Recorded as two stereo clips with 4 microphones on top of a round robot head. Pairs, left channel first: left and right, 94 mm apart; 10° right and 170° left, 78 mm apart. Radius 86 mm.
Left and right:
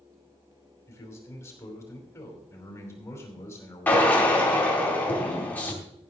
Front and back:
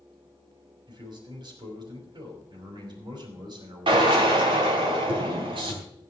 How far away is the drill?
About 4 m.